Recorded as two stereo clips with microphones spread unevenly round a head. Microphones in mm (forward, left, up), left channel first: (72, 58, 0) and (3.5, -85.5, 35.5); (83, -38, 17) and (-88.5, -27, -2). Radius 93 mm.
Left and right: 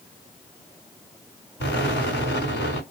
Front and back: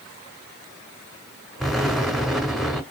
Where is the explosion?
80° left, 2.0 m.